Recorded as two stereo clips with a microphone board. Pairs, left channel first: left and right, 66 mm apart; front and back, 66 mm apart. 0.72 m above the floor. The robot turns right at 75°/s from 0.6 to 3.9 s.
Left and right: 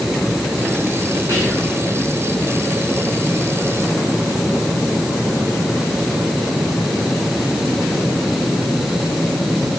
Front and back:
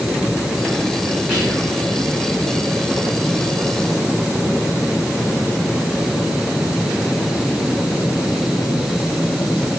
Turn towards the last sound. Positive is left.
turn(degrees=65)